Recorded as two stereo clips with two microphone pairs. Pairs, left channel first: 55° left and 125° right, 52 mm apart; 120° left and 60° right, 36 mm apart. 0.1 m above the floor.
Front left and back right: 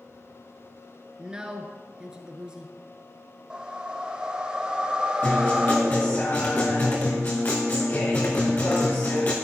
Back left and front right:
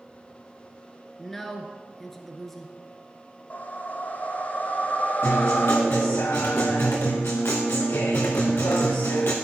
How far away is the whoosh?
About 0.9 m.